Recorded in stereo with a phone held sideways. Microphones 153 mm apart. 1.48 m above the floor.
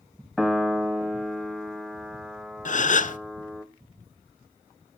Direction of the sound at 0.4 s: Centre (ahead or behind).